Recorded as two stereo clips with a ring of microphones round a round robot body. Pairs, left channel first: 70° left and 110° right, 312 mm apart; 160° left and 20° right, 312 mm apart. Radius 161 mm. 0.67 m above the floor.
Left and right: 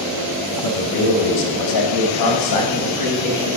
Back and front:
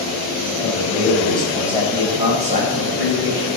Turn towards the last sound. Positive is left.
turn(degrees=30)